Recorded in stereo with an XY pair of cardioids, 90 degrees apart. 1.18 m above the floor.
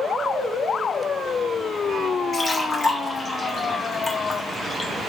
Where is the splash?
35° left, 1.5 m.